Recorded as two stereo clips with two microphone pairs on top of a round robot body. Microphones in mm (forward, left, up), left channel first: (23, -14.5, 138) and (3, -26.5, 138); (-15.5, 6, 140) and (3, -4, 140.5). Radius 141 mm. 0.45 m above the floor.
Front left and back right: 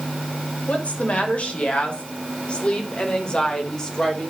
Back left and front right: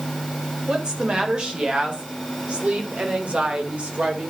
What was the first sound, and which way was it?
A woman speaking, 15° left.